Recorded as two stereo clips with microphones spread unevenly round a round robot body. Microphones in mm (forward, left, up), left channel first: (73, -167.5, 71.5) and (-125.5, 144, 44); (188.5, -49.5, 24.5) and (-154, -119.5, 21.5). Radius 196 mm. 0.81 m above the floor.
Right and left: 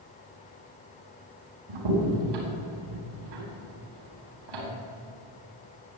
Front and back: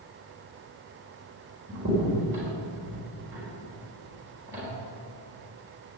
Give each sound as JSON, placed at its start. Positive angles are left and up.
{"t": 1.7, "sound": "a crack", "azimuth_deg": 110, "distance_m": 4.0}